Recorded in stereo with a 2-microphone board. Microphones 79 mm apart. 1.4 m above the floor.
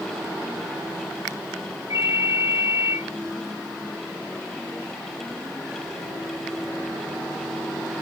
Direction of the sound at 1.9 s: 50° right (ahead or behind).